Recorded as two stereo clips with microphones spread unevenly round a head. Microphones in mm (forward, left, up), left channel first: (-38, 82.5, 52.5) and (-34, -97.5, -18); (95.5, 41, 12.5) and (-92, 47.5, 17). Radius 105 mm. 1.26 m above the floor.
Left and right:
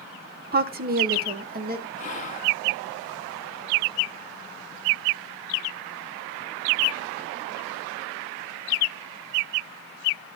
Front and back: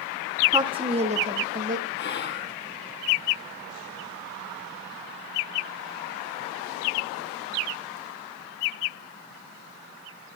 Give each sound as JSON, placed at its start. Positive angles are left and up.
{"t": 0.5, "sound": "a woman speaking", "azimuth_deg": -110, "distance_m": 0.9}
{"t": 2.0, "sound": "whispering", "azimuth_deg": 30, "distance_m": 3.0}